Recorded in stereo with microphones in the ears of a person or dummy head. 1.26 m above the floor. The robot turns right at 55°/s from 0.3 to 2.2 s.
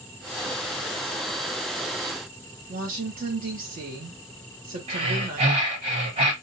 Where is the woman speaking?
45° right (ahead or behind), 1.2 m.